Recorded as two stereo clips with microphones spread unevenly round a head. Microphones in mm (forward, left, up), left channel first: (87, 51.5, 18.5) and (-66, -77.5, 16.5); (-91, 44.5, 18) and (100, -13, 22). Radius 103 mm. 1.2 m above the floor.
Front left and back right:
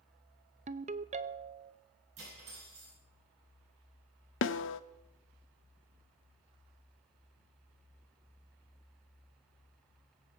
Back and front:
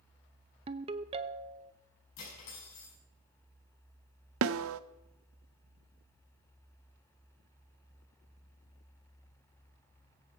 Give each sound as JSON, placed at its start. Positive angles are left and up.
{"t": 0.7, "sound": "a ringtone", "azimuth_deg": -80, "distance_m": 0.6}
{"t": 2.2, "sound": "cutlery clinking", "azimuth_deg": 160, "distance_m": 6.0}
{"t": 4.4, "sound": "a snare drum", "azimuth_deg": 5, "distance_m": 0.7}